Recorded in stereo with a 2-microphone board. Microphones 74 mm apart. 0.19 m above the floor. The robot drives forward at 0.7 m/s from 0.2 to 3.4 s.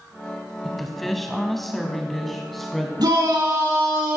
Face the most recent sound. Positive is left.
turn(degrees=-75)  # may be behind; listen again after turning